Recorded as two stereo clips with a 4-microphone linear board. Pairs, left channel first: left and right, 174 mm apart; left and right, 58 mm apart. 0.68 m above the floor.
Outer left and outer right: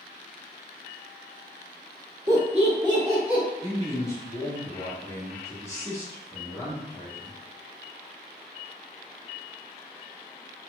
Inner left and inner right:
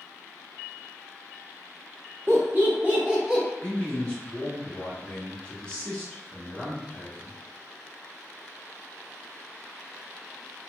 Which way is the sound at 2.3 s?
45° right (ahead or behind).